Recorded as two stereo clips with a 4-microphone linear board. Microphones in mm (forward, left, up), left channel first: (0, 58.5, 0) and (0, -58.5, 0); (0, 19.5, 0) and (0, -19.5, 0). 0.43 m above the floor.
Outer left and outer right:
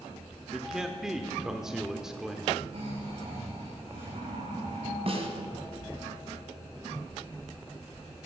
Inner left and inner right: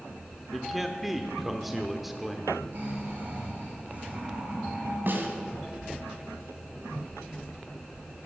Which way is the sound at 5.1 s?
55° right (ahead or behind).